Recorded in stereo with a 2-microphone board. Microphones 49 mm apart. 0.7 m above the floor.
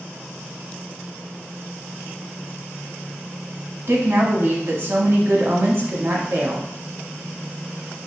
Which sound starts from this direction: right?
A woman speaking, at 3.9 s.